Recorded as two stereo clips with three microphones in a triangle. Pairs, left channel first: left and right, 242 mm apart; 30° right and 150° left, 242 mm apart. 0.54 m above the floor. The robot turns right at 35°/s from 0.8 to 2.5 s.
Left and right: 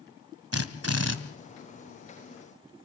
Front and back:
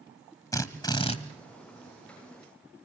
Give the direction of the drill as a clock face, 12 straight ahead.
4 o'clock.